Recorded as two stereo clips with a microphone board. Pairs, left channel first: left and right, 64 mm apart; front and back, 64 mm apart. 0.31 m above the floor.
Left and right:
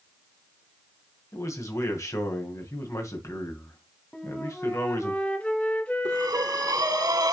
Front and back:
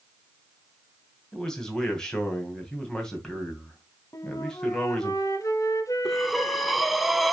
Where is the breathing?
95° right, 0.7 m.